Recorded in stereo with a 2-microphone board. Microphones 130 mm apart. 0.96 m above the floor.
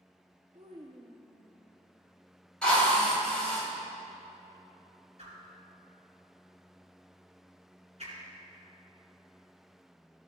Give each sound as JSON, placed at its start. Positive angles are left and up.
{"t": 0.5, "sound": "a child speaking", "side_deg": -55, "distance_m": 0.7}
{"t": 2.6, "sound": "a drill", "side_deg": 5, "distance_m": 2.5}
{"t": 5.2, "sound": "a whoosh", "side_deg": -55, "distance_m": 3.5}